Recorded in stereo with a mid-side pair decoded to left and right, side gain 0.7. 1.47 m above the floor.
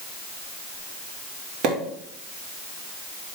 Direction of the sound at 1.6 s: 50° right.